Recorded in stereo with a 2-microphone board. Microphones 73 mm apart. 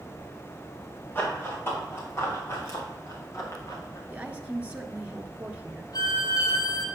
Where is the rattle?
I don't hear a rattle.